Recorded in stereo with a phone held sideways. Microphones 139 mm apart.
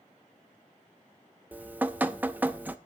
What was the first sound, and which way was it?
Dripping, 10° right (ahead or behind).